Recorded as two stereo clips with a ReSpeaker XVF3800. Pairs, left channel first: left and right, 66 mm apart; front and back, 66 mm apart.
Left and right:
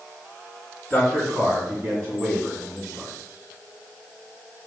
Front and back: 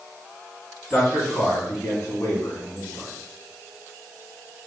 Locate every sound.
0.9 s a man speaking: 90° right, 1.5 m; by 3.1 s 35° right, 2.5 m